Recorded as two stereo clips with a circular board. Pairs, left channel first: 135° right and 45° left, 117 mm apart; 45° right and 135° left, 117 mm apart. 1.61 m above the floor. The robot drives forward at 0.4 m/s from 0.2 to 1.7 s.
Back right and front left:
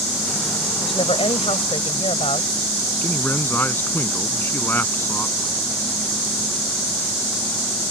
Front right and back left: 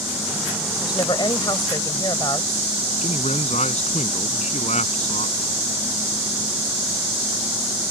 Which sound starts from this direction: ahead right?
A man speaking, at 3.0 s.